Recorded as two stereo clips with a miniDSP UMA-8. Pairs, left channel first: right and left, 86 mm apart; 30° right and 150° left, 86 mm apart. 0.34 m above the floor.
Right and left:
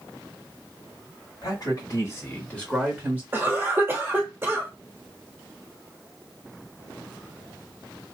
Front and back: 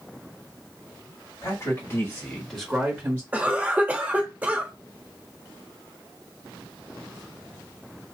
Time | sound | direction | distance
1.4 | a man speaking | 65° right | 1.9 m
3.3 | a cough | 105° left | 1.1 m